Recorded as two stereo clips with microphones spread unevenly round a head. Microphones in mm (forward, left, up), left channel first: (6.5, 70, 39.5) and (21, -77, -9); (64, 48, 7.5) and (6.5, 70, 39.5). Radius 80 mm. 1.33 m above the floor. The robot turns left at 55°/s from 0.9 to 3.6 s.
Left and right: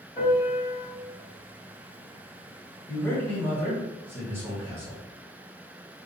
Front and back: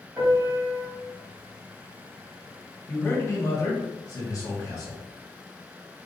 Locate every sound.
0.2 s a piano: 135° left, 1.7 m
2.9 s a man speaking: 25° left, 1.6 m; by 5.0 s 15° right, 1.6 m